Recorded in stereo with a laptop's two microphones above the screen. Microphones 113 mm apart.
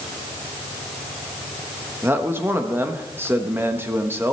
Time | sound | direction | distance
2.0 | a man speaking | 20° right (ahead or behind) | 1.0 m